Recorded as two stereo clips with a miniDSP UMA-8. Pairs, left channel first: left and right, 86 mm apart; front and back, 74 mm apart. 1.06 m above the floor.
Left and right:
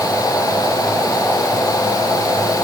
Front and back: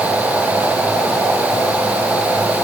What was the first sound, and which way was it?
Only background noise.